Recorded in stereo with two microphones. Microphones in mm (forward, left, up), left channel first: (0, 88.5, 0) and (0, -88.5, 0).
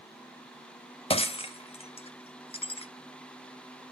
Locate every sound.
1.1 s breaking glass: 30° left (ahead or behind), 0.6 m